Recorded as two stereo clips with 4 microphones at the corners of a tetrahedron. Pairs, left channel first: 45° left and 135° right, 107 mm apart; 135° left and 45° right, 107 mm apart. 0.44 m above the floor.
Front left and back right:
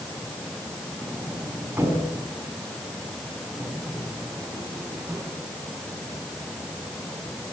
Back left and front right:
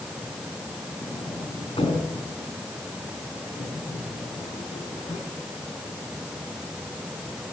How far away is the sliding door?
About 4 m.